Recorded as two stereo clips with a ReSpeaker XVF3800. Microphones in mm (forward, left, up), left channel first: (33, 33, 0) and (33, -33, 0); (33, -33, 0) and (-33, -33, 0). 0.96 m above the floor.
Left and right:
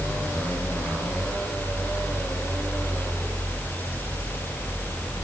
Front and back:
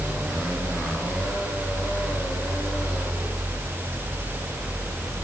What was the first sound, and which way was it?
Only background noise.